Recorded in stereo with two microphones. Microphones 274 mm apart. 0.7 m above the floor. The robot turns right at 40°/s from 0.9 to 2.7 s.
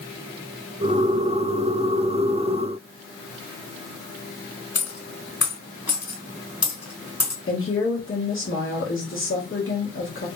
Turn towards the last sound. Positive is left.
turn(degrees=50)  # may be behind; listen again after turning